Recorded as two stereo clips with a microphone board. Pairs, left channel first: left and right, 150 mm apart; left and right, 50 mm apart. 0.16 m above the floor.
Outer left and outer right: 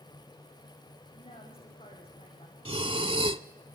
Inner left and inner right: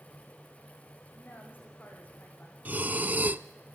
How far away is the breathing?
About 0.6 m.